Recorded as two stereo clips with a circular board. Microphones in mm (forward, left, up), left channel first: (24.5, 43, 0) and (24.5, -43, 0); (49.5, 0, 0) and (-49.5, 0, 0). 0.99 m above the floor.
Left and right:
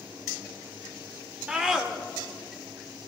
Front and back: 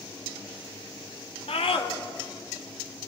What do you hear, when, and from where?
1.5 s a scream: 10° right, 2.5 m; by 3.1 s 20° left, 1.7 m